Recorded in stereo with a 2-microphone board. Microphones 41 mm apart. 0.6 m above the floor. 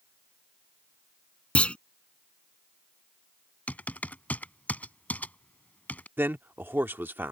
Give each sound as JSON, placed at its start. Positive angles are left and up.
{"t": 1.6, "sound": "a clunk", "side_deg": 30}
{"t": 3.7, "sound": "typing on a keyboard", "side_deg": 40}
{"t": 6.2, "sound": "a man speaking", "side_deg": -55}